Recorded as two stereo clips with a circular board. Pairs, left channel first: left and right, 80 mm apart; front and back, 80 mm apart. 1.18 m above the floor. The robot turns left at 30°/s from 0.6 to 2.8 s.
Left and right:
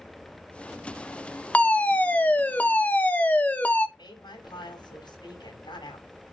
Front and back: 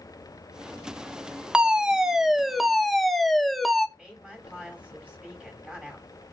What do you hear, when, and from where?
1.5 s a fire alarm: 130° left, 0.9 m; by 3.9 s 90° left, 0.9 m
4.0 s a woman speaking: 105° left, 7 m